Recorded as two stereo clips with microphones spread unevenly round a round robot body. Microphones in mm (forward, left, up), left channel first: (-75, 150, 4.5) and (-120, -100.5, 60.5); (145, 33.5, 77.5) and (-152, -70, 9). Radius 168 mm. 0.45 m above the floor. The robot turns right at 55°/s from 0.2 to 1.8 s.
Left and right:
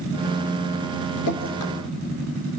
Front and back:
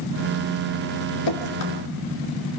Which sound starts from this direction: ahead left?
Dripping, at 1.3 s.